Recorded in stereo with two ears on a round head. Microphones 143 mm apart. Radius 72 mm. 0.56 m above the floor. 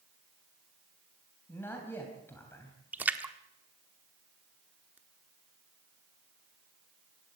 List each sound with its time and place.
1.5 s a man speaking: 15° left (ahead or behind), 3.5 m
2.9 s a splash: 10° right (ahead or behind), 1.2 m